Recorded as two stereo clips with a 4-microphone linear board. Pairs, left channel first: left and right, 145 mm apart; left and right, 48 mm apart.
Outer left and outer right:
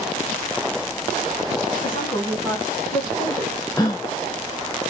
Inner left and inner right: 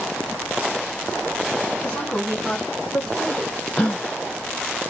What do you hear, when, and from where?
1.8 s a woman speaking: 25° left (ahead or behind), 2 m; by 3.6 s centre (ahead or behind), 3 m
3.8 s a gasp: 25° left (ahead or behind), 2.5 m